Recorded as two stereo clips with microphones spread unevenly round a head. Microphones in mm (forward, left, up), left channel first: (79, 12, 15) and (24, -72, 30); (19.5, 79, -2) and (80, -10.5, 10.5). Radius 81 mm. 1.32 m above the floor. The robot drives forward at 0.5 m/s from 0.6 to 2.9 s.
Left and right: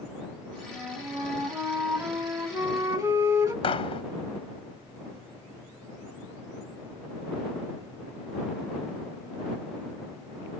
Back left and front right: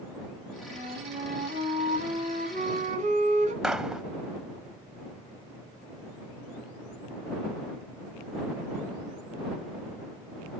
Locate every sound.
0.7 s a flute: 50° right, 3 m; by 3.5 s 75° right, 2.5 m
3.6 s a gunshot: 35° left, 0.9 m